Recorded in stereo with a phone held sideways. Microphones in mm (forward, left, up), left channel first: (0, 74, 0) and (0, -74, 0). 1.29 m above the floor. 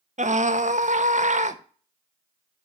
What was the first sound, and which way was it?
A scream, 55° right (ahead or behind).